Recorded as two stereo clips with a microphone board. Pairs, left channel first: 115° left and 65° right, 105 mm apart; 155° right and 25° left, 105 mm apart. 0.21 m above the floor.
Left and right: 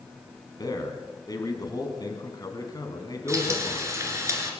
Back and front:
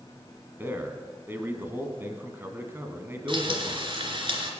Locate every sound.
0.6 s a man speaking: 80° left, 1.9 m
3.3 s frying: 10° right, 2.5 m